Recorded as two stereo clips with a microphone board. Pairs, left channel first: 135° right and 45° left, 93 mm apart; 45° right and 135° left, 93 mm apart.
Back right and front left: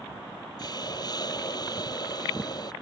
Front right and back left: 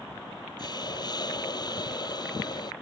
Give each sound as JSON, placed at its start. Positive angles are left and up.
{"t": 0.6, "sound": "a hiss", "azimuth_deg": -90}